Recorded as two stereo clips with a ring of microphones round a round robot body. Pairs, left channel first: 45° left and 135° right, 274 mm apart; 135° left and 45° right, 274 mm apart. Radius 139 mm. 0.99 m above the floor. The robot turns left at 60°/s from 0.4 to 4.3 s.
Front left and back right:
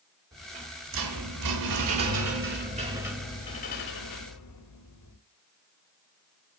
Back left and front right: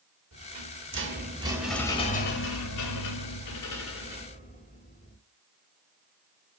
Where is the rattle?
55° right, 3 m; by 5.2 s 70° left, 3 m.